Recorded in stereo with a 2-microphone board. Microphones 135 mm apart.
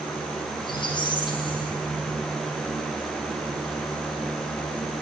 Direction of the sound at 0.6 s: 35° left (ahead or behind).